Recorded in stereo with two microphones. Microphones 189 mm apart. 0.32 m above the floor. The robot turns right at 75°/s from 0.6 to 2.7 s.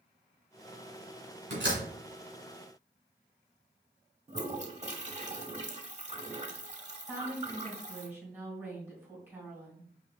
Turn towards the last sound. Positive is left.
turn(degrees=-10)  # may be behind; listen again after turning